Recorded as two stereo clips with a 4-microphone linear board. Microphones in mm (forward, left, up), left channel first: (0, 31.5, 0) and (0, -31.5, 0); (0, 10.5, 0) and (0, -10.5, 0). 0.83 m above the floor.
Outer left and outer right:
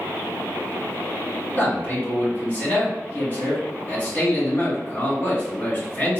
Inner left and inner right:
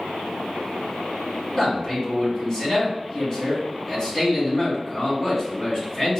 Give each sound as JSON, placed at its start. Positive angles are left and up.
{"t": 1.6, "sound": "a man speaking", "side_deg": 35, "distance_m": 1.6}